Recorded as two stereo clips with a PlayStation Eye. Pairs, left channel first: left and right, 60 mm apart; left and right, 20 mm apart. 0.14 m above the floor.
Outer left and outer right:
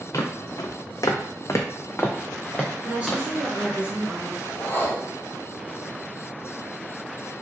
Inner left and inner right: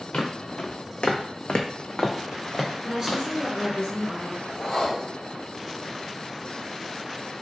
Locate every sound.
0.1 s footsteps: 60° left (ahead or behind), 0.7 m; by 3.8 s 5° right (ahead or behind), 1.3 m
2.8 s a woman speaking: 20° right (ahead or behind), 1.3 m
4.5 s a whoosh: 35° left (ahead or behind), 0.8 m